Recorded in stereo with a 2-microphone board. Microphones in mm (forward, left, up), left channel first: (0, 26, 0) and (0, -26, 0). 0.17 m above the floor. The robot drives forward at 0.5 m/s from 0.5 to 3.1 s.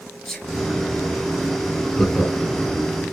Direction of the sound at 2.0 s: 10° left (ahead or behind).